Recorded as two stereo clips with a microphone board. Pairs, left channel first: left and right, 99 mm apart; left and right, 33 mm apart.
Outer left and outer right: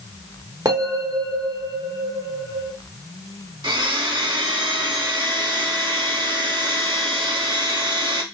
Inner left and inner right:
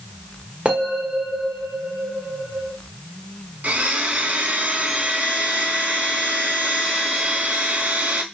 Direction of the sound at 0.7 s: 35° right (ahead or behind).